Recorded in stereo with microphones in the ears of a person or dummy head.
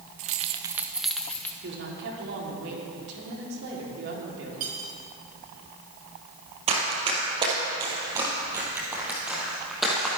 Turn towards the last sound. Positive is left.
turn(degrees=0)  # may be behind; listen again after turning